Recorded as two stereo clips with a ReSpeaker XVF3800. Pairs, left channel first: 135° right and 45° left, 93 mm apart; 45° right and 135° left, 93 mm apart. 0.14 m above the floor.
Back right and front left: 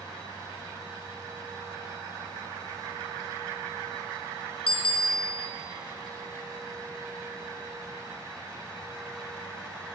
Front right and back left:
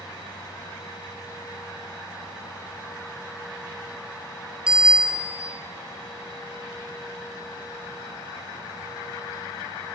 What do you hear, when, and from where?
4.7 s a bicycle bell: 145° right, 2 m